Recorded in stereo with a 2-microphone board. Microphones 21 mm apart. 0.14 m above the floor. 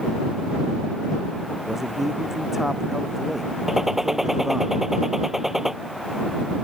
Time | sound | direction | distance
1.6 | a man speaking | 20° right (ahead or behind) | ?
3.7 | a gunshot | 10° right (ahead or behind) | ?